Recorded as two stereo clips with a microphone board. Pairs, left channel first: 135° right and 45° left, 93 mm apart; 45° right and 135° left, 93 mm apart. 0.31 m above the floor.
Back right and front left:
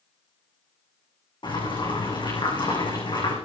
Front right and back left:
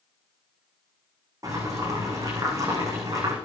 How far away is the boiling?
About 9 m.